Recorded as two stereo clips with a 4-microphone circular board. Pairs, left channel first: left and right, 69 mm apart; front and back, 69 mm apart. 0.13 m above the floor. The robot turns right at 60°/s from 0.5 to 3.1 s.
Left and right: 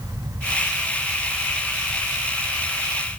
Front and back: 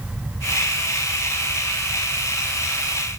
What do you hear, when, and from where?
Only background noise.